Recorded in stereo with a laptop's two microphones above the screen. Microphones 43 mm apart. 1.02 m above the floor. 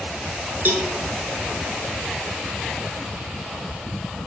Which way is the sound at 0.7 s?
50° right (ahead or behind).